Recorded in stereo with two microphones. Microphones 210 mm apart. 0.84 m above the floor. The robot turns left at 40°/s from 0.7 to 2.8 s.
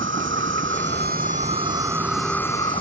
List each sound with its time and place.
0.0 s an insect: 120° right; by 2.8 s 155° left